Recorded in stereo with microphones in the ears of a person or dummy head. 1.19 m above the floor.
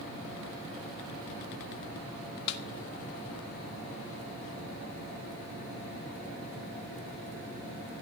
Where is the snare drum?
60° left (ahead or behind), 0.9 m.